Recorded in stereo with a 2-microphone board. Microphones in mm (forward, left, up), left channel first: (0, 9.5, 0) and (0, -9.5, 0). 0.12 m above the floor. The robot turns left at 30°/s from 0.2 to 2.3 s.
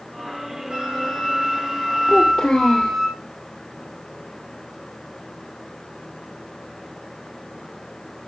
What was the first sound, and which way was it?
A flute, 110° right.